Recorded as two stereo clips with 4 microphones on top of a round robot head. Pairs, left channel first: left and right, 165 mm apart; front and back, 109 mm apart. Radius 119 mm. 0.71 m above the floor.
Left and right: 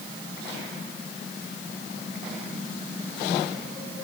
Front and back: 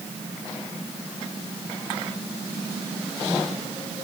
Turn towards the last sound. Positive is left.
No sound to turn to.